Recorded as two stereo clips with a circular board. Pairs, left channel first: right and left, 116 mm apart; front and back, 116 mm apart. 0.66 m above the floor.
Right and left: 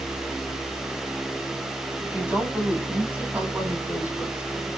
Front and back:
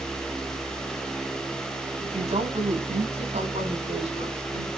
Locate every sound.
2.0 s a woman speaking: 170° left, 4.5 m; by 4.7 s 165° left, 6 m